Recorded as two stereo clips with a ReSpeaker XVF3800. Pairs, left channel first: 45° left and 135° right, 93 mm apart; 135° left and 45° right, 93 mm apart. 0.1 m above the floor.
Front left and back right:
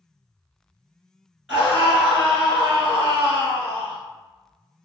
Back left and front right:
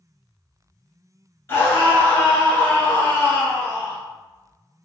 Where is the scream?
150° left, 1.2 m.